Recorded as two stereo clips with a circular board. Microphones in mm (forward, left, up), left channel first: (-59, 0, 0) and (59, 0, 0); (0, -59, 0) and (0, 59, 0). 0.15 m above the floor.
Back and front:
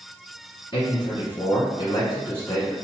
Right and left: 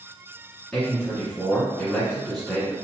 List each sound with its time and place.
0.7 s a man speaking: 175° right, 1.4 m